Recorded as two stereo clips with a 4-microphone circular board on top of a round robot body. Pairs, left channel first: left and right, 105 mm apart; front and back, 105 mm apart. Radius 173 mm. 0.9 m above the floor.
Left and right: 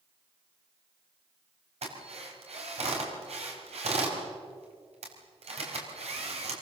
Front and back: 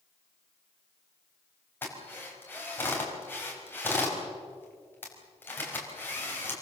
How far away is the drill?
About 5 m.